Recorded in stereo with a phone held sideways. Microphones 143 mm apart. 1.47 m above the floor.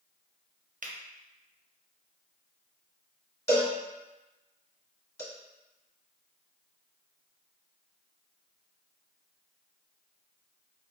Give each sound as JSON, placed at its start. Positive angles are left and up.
{"t": 0.8, "sound": "a finger snap", "side_deg": -65, "distance_m": 0.5}
{"t": 3.5, "sound": "a cowbell", "side_deg": 15, "distance_m": 1.8}